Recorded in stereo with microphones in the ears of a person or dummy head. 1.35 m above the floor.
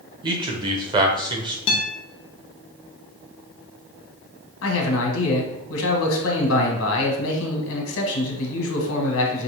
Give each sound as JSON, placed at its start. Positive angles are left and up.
{"t": 0.2, "sound": "a man speaking", "side_deg": -20, "distance_m": 0.7}
{"t": 1.7, "sound": "a guitar", "side_deg": 30, "distance_m": 0.8}
{"t": 4.6, "sound": "a man speaking", "side_deg": 75, "distance_m": 1.4}